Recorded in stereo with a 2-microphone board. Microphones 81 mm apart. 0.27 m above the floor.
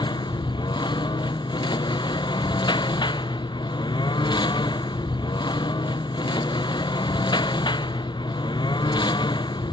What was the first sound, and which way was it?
A lawn mower, 80° left.